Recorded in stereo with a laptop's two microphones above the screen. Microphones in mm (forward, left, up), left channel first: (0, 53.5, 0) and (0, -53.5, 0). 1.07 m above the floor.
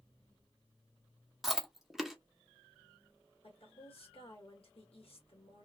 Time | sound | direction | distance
1.4 | chewing | 5° right (ahead or behind) | 0.7 m
3.4 | a woman speaking | 65° left (ahead or behind) | 1.8 m